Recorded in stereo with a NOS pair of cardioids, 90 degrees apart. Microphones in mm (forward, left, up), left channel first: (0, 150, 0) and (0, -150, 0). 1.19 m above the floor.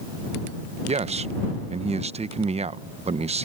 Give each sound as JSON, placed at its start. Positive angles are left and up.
{"t": 0.9, "sound": "a man speaking", "azimuth_deg": -25}